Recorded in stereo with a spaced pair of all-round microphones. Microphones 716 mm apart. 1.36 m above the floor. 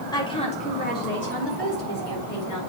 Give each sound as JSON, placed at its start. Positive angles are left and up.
{"t": 0.1, "sound": "a woman speaking", "side_deg": 5, "distance_m": 4.5}